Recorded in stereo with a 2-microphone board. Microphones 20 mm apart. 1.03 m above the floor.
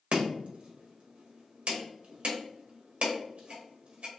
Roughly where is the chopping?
Right.